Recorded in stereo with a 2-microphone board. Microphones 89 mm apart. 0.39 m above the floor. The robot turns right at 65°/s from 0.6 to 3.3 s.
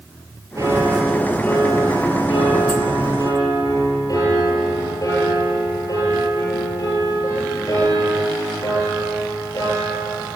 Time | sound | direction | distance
0.6 | a piano | 40° right | 7.5 m